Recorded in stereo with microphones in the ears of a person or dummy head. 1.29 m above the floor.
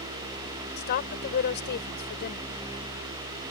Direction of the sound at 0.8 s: 50° left (ahead or behind).